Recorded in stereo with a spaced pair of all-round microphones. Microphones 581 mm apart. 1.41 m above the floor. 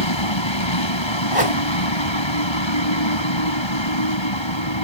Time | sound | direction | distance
0.0 | a vehicle | 50° left (ahead or behind) | ?
1.3 | a whoosh | 65° right (ahead or behind) | ?